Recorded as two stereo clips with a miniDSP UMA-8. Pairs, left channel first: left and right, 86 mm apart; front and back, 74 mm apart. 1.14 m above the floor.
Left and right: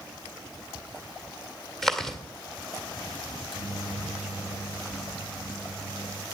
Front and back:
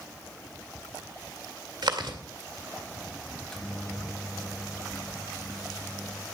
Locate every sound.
1.8 s chewing: 175° left, 1.9 m
3.3 s a microwave: 80° left, 1.2 m